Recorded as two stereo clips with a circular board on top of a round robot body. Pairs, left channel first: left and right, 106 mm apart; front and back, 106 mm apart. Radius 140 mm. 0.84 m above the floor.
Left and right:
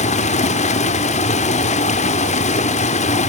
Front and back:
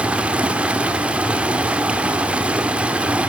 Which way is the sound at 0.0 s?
100° left.